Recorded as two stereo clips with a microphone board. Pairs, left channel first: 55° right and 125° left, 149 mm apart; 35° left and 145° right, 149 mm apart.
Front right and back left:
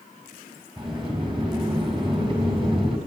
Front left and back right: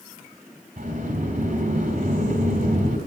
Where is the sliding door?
Straight behind, 3.5 m.